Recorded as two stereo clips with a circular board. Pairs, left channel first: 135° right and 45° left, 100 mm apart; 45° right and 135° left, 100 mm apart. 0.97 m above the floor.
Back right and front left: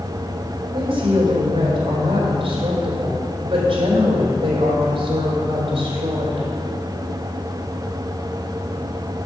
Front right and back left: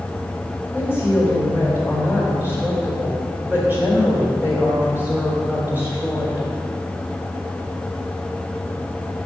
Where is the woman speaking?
65° left, 3.5 m.